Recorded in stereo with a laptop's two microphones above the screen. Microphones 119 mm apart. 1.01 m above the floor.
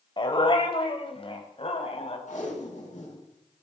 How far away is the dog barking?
About 2 m.